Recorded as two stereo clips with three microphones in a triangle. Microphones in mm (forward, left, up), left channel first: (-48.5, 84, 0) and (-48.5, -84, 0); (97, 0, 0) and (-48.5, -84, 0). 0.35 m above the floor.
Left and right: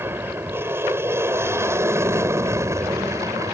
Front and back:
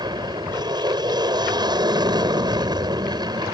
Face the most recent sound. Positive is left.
turn(degrees=-135)